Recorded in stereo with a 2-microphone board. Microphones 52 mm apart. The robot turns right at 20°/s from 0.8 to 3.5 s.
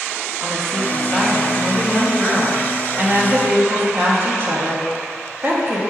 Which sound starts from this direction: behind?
A woman speaking, at 0.4 s.